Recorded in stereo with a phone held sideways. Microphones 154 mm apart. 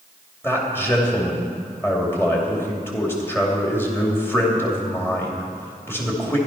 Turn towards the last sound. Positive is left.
turn(degrees=15)  # may be behind; listen again after turning